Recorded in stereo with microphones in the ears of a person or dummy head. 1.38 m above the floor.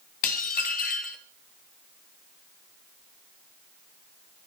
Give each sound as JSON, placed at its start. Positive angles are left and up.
{"t": 0.2, "sound": "dishes clattering", "side_deg": 45, "distance_m": 1.0}